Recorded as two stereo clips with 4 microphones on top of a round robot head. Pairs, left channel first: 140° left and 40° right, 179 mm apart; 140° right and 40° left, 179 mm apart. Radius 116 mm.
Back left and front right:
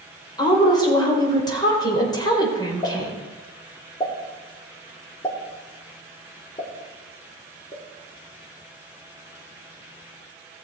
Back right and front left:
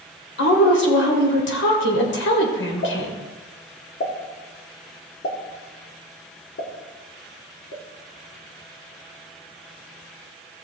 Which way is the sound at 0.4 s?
150° right.